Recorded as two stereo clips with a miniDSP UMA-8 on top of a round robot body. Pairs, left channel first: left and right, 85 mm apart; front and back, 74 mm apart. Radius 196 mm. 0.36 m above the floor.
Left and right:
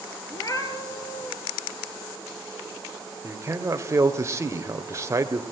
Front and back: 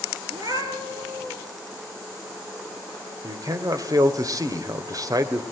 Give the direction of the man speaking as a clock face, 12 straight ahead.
5 o'clock.